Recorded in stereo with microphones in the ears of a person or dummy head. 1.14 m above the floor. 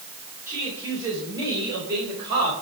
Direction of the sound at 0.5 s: 15° right (ahead or behind).